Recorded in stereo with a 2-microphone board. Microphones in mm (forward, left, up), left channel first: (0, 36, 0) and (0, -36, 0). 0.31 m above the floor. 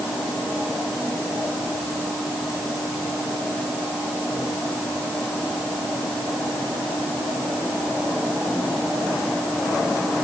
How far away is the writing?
No writing in this recording.